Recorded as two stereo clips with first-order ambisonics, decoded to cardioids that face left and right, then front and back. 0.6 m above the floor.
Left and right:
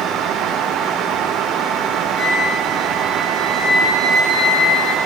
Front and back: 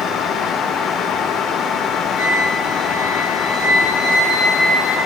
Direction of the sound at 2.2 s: 10° right.